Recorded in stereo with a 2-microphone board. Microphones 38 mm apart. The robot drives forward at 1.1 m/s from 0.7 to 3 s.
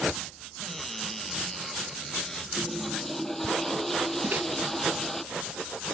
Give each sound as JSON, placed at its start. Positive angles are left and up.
{"t": 0.6, "sound": "a cupboard door", "side_deg": 5}
{"t": 2.6, "sound": "a toilet flushing", "side_deg": 5}
{"t": 4.2, "sound": "a microwave", "side_deg": -50}